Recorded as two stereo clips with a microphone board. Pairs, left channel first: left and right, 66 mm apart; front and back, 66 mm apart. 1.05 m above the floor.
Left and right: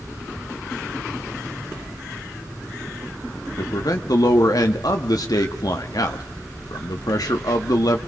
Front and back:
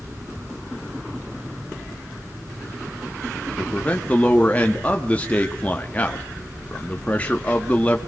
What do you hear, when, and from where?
3.6 s a man speaking: 70° left, 1.5 m